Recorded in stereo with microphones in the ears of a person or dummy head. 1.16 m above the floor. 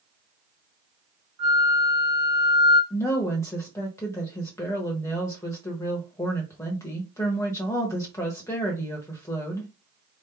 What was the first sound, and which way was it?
A flute, 45° right (ahead or behind).